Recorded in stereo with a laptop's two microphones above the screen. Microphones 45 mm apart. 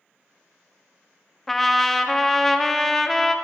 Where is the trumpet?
5° left (ahead or behind), 0.5 m.